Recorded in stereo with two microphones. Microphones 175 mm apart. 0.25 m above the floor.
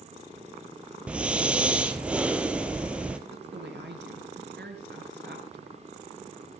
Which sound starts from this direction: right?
A woman speaking, at 3.3 s.